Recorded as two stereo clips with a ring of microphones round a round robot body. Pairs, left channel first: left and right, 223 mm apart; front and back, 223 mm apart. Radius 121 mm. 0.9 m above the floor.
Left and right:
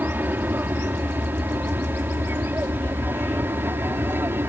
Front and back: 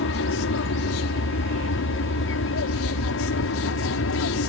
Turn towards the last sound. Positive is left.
turn(degrees=-10)